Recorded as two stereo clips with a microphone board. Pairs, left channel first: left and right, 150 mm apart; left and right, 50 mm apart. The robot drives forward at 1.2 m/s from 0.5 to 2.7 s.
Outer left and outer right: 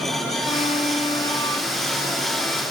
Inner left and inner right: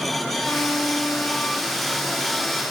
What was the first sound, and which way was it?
A violin, 50° left (ahead or behind).